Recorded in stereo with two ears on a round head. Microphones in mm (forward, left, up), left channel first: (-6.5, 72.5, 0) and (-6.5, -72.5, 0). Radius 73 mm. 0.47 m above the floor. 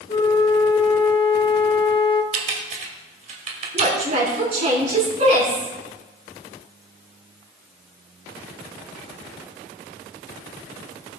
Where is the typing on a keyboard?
45° right (ahead or behind), 2.5 m.